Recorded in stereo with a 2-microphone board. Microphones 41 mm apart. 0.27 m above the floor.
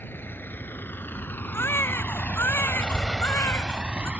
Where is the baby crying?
85° left.